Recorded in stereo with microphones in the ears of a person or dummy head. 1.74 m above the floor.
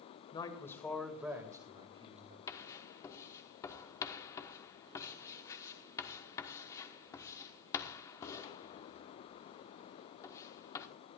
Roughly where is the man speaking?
Left.